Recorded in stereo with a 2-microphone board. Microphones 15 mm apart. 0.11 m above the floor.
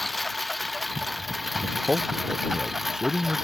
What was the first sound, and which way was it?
A lawn mower, 5° left (ahead or behind).